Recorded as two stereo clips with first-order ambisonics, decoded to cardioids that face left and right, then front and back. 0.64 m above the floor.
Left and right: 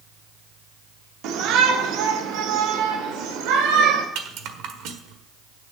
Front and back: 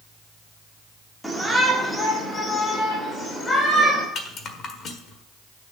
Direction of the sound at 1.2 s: 90° right.